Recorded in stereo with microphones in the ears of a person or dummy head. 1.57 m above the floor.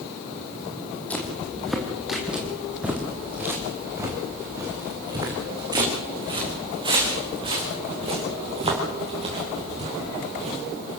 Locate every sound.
1.1 s footsteps: 5° left (ahead or behind), 3.5 m; by 10.6 s 35° right (ahead or behind), 9 m